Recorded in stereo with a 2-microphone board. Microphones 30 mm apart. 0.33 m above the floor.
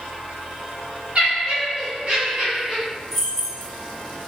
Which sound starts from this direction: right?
Laughter, at 1.1 s.